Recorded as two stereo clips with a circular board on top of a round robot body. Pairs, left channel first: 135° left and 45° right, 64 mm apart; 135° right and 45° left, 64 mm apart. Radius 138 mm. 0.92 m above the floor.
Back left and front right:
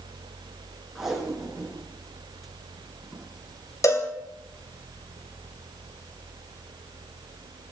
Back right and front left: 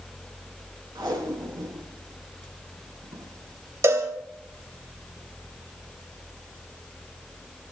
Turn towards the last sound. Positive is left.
turn(degrees=90)